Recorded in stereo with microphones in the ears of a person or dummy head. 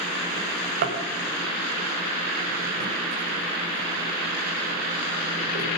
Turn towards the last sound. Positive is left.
turn(degrees=-50)  # may be behind; listen again after turning